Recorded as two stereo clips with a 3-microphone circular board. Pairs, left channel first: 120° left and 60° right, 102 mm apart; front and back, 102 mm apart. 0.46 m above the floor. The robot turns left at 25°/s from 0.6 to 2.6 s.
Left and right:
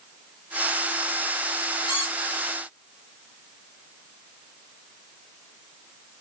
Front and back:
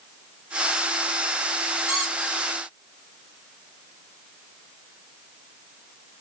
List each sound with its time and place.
1.9 s a squeak: 100° left, 1.3 m; by 2.4 s 85° left, 1.3 m